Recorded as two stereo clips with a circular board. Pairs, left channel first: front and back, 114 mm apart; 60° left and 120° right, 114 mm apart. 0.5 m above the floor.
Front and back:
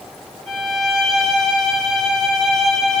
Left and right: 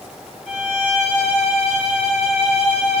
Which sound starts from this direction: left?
A violin, at 0.5 s.